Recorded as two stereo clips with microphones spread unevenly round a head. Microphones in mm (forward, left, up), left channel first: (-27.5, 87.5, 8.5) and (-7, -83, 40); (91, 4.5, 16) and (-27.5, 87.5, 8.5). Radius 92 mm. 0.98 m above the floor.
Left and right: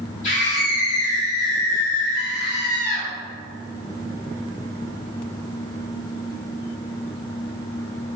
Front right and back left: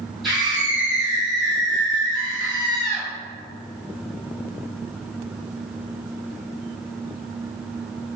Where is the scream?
55° left, 1.9 m.